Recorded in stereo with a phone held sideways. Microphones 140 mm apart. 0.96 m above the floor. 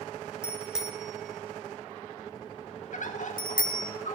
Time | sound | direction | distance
0.4 | a bicycle bell | 5° right (ahead or behind) | 2.5 m
2.9 | a bird | 65° left (ahead or behind) | 1.6 m